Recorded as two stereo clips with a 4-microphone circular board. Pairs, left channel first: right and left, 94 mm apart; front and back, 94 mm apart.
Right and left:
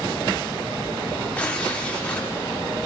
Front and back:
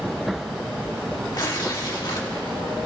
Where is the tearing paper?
20° right, 1.7 m.